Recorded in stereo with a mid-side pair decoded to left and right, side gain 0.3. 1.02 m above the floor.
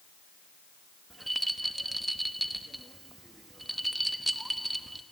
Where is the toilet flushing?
I don't hear a toilet flushing.